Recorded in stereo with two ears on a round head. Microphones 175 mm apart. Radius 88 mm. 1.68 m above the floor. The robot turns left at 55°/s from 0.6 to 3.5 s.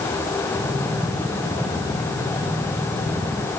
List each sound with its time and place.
Only background noise.